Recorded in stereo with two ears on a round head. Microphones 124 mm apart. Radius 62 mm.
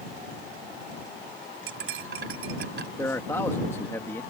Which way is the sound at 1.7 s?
85° right.